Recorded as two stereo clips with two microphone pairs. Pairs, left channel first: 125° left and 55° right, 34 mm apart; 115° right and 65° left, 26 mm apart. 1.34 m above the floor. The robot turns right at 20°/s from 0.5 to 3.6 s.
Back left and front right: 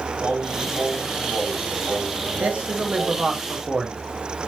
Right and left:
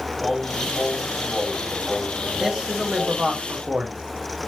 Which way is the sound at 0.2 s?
60° right.